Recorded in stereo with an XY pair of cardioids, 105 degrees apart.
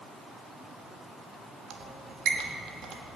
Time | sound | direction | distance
1.7 | a squeak | 65° right | 1.3 m